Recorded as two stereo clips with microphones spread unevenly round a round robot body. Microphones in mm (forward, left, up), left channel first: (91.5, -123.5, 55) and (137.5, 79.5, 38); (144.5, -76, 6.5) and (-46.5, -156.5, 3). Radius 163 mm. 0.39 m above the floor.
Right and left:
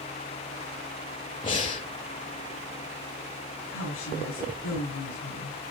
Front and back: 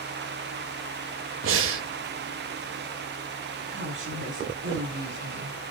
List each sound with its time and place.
1.4 s breathing: 175° right, 0.5 m
3.7 s a woman speaking: 135° right, 5.5 m